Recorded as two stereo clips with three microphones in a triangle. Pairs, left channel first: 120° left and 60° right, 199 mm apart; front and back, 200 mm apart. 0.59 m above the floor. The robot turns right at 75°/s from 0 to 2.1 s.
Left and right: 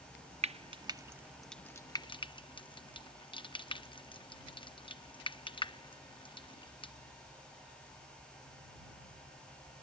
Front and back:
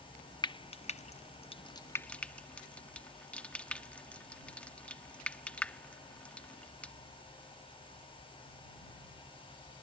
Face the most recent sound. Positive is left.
turn(degrees=80)